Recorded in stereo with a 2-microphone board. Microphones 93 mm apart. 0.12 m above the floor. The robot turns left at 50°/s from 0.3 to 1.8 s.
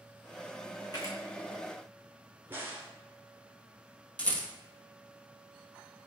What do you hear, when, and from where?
0.9 s a camera shutter: 45° left (ahead or behind), 1.6 m; by 1.2 s 30° left (ahead or behind), 1.6 m
2.5 s a crack: 25° right (ahead or behind), 1.1 m
4.2 s a rattle: 15° left (ahead or behind), 1.2 m